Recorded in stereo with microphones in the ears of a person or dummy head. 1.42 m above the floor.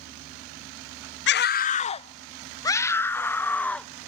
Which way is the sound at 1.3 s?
50° left (ahead or behind).